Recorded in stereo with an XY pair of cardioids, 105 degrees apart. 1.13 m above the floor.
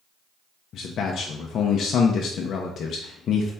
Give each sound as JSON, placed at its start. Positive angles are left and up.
{"t": 0.7, "sound": "a man speaking", "azimuth_deg": 60, "distance_m": 0.7}